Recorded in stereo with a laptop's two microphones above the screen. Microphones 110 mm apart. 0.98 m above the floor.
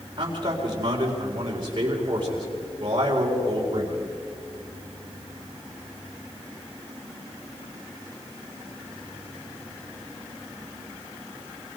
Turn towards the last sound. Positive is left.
turn(degrees=-45)  # may be behind; listen again after turning